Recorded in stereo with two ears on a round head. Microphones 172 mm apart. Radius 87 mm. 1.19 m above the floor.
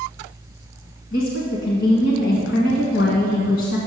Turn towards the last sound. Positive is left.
turn(degrees=65)  # may be behind; listen again after turning